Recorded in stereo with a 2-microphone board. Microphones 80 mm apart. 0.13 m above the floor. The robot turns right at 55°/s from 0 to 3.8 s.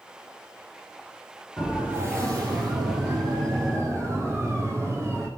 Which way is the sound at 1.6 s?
10° right (ahead or behind).